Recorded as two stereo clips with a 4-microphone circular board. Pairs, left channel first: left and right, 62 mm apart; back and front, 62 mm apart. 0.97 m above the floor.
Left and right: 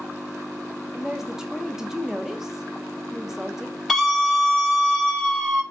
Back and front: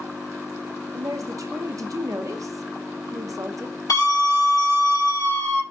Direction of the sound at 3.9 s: Straight behind.